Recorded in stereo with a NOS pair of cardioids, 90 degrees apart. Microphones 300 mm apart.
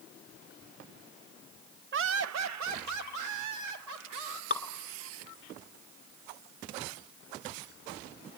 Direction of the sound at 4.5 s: 30° left.